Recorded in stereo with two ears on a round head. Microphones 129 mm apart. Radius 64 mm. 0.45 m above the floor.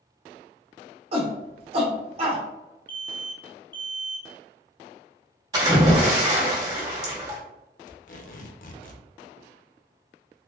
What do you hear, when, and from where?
1.1 s a shout: 40° right (ahead or behind), 1.0 m
2.9 s an alarm: 15° left (ahead or behind), 0.7 m
5.5 s a splash: 30° right (ahead or behind), 1.6 m
7.9 s tape being pulled: 60° left (ahead or behind), 0.7 m